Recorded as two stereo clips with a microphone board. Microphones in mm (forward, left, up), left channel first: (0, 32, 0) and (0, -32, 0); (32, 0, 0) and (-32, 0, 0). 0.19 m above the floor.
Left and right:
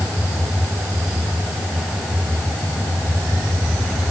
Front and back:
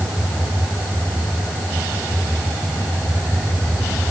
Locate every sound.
Only background noise.